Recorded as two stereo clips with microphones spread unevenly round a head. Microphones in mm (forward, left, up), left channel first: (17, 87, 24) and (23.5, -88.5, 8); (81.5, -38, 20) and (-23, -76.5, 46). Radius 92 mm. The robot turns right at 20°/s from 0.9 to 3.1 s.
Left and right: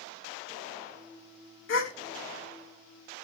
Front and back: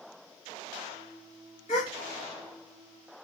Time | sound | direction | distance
1.7 | a gasp | 80° left | 1.2 m